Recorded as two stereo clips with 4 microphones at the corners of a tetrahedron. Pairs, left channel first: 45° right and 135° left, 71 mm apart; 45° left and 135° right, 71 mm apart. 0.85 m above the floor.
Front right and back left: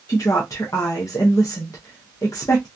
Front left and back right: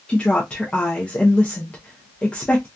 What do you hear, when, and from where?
0.1 s a woman speaking: 25° right, 0.7 m